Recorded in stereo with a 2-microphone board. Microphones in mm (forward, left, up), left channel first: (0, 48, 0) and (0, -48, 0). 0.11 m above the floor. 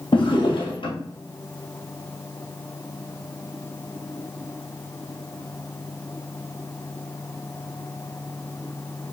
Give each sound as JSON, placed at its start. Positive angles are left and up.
{"t": 0.1, "sound": "a drawer", "side_deg": 60, "distance_m": 1.6}